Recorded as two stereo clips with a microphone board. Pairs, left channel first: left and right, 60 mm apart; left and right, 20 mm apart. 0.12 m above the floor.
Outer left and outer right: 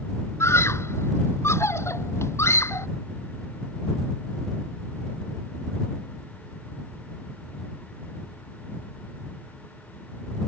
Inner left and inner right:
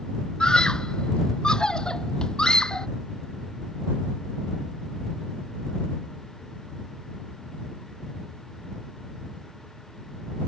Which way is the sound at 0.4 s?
50° left (ahead or behind).